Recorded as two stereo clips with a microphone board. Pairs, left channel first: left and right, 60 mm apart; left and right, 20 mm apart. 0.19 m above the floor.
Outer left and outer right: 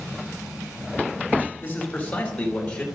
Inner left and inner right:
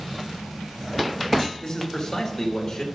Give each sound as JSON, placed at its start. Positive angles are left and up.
{"t": 1.6, "sound": "a man speaking", "side_deg": 30, "distance_m": 3.5}